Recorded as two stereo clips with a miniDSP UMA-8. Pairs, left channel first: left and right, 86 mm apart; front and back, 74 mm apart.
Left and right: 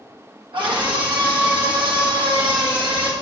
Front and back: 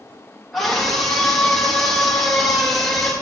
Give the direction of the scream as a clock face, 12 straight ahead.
3 o'clock.